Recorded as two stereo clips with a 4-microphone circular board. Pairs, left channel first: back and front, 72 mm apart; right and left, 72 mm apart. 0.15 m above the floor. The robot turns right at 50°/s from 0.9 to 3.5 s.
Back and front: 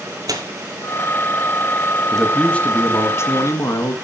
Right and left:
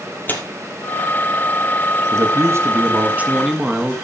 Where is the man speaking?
95° left, 1.8 m; by 4.0 s 165° left, 1.8 m.